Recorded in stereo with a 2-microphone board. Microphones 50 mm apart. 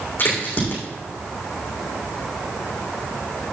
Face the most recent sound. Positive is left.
turn(degrees=40)  # may be behind; listen again after turning